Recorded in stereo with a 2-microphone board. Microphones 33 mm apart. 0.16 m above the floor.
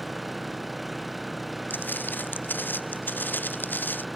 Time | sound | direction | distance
0.0 | an engine running | 5° right (ahead or behind) | ?
1.7 | footsteps | 80° left | ?